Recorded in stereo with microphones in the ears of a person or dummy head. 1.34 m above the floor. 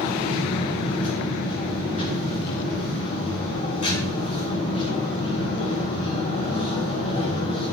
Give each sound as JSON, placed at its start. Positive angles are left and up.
{"t": 0.0, "sound": "a machine running", "side_deg": 35, "distance_m": 5.0}